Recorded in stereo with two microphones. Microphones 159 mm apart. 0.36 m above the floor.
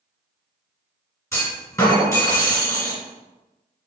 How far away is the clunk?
About 2.0 m.